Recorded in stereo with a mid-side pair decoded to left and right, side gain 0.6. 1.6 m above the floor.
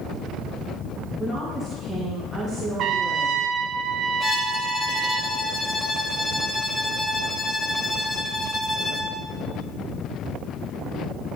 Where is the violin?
25° left, 1.3 m.